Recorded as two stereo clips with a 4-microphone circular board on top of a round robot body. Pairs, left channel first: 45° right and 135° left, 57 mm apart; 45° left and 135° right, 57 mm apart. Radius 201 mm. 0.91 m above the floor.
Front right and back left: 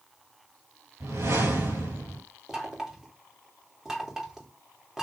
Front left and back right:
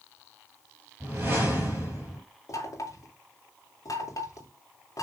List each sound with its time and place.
1.0 s a whoosh: 165° left, 4.5 m
2.5 s knocking: 55° left, 3 m